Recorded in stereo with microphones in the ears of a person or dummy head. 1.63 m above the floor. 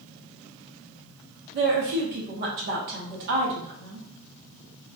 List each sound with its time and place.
1.5 s a woman speaking: 55° right (ahead or behind), 0.7 m